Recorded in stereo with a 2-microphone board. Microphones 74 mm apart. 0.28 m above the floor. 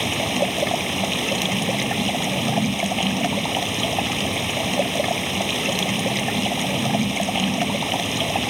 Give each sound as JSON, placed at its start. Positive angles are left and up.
{"t": 0.0, "sound": "running water", "side_deg": 0}